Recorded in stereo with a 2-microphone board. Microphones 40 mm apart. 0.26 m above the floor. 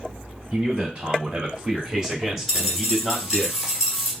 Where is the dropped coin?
5° right (ahead or behind), 1.7 m.